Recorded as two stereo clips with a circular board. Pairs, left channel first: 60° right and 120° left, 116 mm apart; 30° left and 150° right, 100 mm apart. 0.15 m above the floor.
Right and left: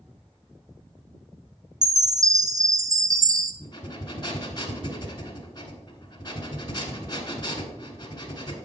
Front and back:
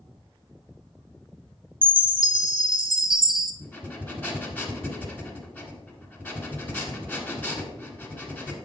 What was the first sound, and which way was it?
A chime, straight behind.